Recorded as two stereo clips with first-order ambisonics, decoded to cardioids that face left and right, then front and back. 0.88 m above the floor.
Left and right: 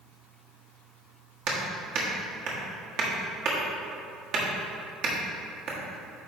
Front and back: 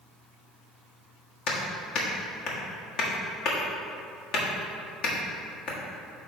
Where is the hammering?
50° right, 1.5 m.